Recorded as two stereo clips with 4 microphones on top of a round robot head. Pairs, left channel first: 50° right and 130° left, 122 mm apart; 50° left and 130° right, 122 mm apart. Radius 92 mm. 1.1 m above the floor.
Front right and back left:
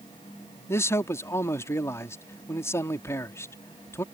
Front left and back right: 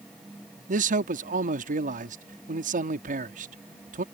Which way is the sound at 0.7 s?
120° right.